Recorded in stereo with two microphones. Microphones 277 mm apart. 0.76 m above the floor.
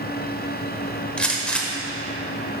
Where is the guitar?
No guitar in this recording.